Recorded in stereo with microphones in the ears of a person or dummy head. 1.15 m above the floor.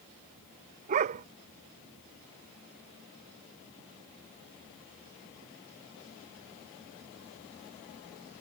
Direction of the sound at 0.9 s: 45° right (ahead or behind).